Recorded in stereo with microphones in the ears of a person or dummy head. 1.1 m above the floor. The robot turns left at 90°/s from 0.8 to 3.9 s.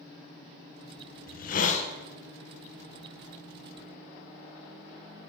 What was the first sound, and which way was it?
A hiss, 105° left.